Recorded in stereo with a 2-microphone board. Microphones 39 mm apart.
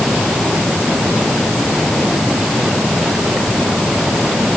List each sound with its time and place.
Only background noise.